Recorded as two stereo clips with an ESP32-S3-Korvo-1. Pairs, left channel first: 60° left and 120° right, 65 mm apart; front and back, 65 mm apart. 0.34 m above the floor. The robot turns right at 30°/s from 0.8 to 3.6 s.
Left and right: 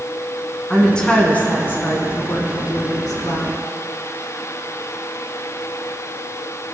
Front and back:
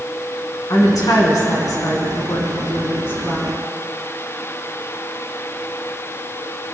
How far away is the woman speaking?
About 3 m.